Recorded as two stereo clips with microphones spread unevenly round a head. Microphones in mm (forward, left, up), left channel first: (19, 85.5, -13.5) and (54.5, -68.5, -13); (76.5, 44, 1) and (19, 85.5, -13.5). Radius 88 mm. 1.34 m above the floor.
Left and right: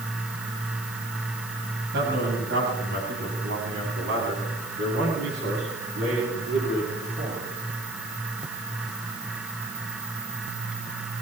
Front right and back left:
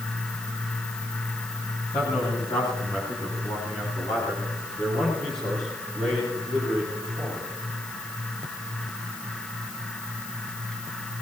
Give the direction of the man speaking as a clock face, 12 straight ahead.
2 o'clock.